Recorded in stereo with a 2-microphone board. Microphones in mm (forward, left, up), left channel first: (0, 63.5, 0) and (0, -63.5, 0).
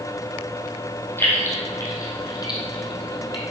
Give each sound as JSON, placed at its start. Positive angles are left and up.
{"t": 1.2, "sound": "keys jangling", "side_deg": 20, "distance_m": 2.5}